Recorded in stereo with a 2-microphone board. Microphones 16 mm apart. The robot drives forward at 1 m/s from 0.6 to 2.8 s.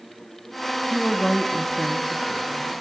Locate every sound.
0.9 s a woman speaking: 10° left (ahead or behind), 0.9 m; by 2.7 s 5° left (ahead or behind), 1.5 m